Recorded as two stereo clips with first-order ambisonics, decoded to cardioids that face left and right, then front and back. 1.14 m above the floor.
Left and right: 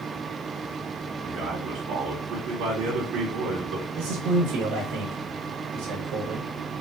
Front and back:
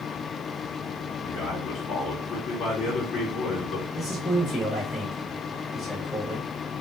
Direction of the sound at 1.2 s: 50° right.